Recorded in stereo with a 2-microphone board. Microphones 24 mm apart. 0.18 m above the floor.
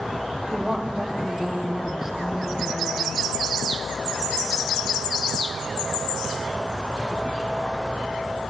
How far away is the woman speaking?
About 5.5 m.